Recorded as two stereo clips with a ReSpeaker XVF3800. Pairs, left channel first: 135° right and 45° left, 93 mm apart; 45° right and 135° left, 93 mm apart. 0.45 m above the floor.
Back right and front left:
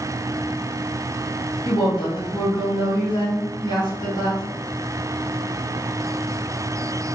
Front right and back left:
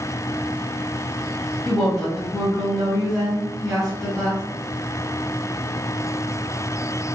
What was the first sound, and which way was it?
A woman speaking, 135° right.